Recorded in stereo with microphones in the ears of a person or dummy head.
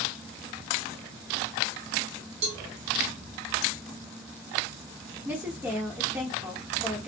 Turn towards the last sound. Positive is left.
turn(degrees=-10)  # may be behind; listen again after turning